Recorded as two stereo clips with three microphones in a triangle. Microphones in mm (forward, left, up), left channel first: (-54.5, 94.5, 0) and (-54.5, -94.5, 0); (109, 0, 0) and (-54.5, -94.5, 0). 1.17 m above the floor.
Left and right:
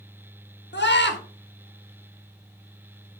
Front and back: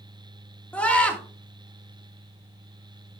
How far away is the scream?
About 1.6 m.